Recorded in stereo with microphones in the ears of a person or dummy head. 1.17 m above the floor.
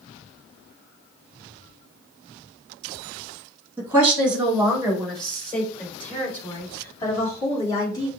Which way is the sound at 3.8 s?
15° right (ahead or behind).